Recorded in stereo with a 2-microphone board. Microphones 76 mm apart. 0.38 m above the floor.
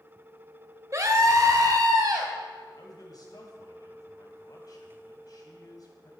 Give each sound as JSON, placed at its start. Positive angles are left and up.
{"t": 0.9, "sound": "a scream", "side_deg": -45, "distance_m": 1.6}
{"t": 2.8, "sound": "a man speaking", "side_deg": 60, "distance_m": 2.5}